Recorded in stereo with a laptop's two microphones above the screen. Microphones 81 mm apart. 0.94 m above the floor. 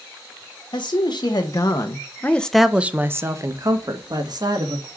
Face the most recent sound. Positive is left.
turn(degrees=-60)  # may be behind; listen again after turning